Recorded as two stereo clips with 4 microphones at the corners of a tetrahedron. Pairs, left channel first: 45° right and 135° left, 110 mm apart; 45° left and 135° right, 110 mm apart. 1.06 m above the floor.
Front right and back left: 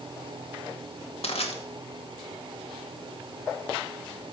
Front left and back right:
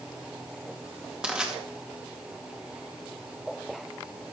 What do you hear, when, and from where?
1.2 s crushing: 55° right, 2 m